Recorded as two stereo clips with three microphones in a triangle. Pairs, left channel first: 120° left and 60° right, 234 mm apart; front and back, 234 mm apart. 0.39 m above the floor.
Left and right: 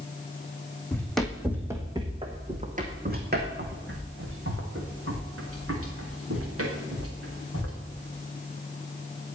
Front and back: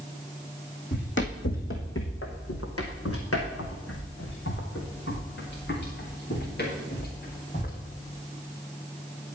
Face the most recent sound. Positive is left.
turn(degrees=-50)